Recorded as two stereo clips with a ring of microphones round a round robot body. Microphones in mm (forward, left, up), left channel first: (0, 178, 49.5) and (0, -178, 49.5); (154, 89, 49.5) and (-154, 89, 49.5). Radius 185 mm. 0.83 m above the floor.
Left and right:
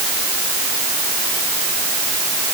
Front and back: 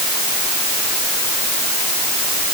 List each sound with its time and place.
Only background noise.